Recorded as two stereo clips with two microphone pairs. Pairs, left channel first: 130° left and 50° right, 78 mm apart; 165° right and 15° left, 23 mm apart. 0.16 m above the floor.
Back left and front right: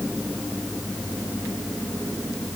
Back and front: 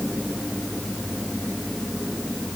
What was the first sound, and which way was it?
Only background noise.